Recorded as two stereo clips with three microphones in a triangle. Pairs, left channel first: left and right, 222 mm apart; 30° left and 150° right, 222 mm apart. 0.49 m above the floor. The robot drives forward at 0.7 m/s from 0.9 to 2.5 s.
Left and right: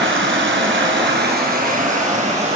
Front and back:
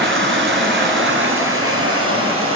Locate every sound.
0.0 s running water: 120° right, 1.1 m; by 2.6 s 150° right, 1.9 m